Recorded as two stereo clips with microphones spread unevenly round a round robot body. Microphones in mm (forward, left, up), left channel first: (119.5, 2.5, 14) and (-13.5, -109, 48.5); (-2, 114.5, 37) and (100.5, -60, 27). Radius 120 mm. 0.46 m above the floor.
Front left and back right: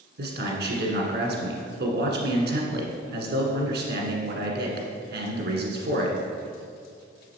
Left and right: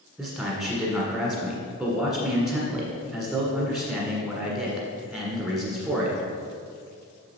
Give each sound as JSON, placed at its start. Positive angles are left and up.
{"t": 0.2, "sound": "a man speaking", "azimuth_deg": -145, "distance_m": 1.6}